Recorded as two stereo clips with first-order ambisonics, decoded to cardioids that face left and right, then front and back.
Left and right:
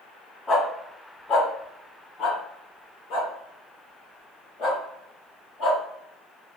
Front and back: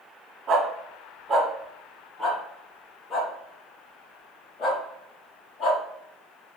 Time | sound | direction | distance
0.5 | a dog barking | 150° left | 1.5 m